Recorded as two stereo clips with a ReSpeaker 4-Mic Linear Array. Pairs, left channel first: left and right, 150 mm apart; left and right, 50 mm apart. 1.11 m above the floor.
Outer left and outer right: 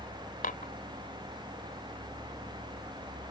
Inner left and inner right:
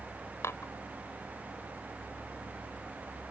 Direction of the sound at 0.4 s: 65° left (ahead or behind).